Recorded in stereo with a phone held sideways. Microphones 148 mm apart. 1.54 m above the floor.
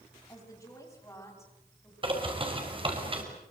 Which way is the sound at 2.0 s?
35° right (ahead or behind).